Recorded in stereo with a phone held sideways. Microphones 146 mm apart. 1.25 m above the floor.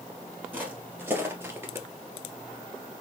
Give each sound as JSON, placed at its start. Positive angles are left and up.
{"t": 0.5, "sound": "footsteps", "side_deg": -10, "distance_m": 1.8}